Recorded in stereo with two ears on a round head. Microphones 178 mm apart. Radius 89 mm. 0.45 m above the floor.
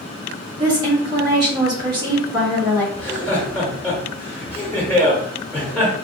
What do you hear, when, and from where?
0.6 s a woman speaking: 20° right (ahead or behind), 1.4 m
3.0 s laughter: 10° left (ahead or behind), 1.1 m